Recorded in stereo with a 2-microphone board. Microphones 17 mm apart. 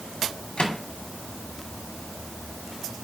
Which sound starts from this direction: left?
A microwave, at 0.6 s.